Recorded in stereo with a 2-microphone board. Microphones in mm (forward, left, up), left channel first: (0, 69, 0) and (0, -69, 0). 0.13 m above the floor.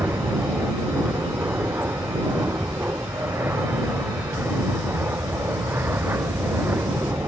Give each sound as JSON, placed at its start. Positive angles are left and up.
{"t": 0.0, "sound": "an aircraft", "side_deg": -15}